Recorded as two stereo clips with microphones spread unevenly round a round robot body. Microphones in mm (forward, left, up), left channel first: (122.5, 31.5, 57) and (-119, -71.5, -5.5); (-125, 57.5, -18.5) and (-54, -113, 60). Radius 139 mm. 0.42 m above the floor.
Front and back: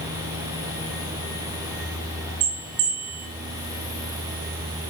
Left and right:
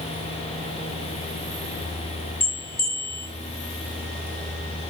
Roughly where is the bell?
Behind left.